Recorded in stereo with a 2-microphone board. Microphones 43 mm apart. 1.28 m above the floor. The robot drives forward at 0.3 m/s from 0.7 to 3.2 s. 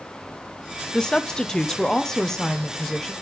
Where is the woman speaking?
15° left (ahead or behind), 0.5 m; by 3.1 s 10° left (ahead or behind), 1.0 m.